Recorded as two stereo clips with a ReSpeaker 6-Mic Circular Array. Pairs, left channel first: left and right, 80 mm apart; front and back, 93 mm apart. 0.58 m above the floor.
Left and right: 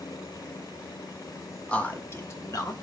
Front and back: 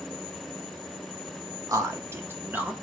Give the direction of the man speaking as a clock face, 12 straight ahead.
7 o'clock.